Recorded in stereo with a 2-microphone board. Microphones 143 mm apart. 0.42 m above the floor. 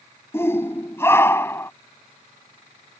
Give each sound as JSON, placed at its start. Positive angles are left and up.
{"t": 0.3, "sound": "a shout", "side_deg": 15}